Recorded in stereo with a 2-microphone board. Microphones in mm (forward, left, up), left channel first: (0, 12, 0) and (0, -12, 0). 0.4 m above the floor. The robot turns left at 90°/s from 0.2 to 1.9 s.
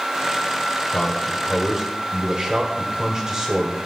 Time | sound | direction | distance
0.9 | a man speaking | 55° left | 2.0 m